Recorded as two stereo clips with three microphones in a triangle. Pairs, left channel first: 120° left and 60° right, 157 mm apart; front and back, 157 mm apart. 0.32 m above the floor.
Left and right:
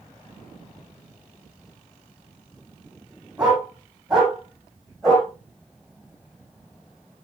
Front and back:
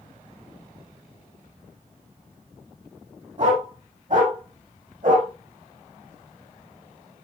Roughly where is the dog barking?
Behind right.